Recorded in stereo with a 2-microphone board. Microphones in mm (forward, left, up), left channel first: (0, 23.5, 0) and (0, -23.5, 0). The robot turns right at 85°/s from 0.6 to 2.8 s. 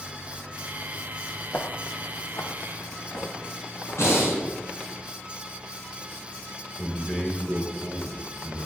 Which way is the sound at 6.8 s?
30° left (ahead or behind).